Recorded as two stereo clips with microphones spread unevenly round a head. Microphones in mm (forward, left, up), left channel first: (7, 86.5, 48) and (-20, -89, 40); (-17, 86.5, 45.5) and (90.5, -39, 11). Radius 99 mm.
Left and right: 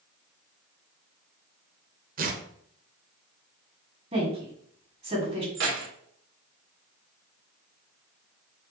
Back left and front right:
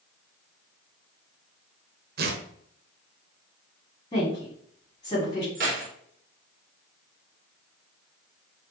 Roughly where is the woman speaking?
Behind.